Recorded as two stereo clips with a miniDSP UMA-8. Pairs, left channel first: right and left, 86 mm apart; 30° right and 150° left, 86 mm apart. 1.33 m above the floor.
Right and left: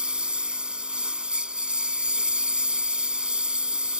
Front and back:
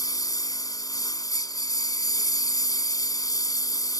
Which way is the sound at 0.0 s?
10° left.